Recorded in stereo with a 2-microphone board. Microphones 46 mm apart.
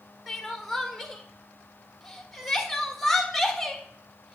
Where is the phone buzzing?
No phone buzzing in this recording.